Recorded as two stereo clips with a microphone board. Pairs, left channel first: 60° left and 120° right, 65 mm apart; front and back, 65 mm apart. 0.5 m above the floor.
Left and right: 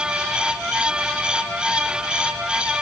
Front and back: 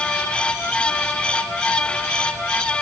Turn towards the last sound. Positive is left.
No sound to turn to.